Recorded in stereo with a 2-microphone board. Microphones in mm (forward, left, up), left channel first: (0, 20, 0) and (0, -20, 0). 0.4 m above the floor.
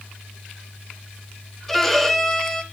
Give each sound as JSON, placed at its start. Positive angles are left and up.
{"t": 1.7, "sound": "a violin", "side_deg": 5, "distance_m": 1.3}